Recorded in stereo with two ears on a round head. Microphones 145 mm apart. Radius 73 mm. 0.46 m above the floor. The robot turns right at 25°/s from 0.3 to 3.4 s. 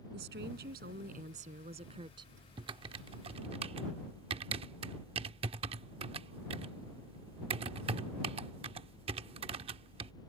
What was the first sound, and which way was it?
A woman speaking, 80° right.